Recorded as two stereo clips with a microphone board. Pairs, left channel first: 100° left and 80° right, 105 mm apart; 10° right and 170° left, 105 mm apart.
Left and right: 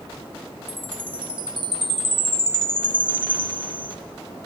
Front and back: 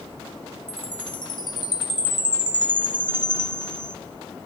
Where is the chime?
50° right, 2 m.